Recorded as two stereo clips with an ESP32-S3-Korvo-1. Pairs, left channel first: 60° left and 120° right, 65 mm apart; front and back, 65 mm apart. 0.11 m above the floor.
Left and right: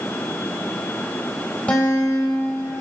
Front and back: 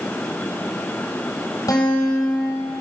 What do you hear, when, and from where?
1.7 s a guitar: 5° right, 3.5 m